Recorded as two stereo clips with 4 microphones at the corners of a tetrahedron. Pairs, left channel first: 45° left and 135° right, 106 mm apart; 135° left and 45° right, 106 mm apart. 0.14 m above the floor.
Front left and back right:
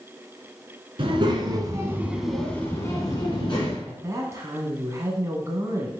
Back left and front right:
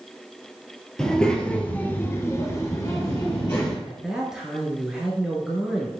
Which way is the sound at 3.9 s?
125° right.